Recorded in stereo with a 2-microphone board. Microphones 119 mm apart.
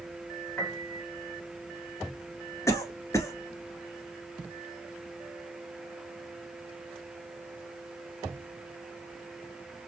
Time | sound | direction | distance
0.6 | a piano | 15° left (ahead or behind) | 2 m
2.7 | a cough | 25° left (ahead or behind) | 1.2 m